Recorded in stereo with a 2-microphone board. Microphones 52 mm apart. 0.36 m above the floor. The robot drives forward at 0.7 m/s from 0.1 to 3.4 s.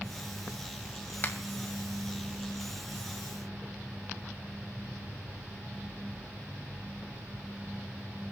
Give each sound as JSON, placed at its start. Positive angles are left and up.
{"t": 1.2, "sound": "a finger snap", "side_deg": 45, "distance_m": 1.9}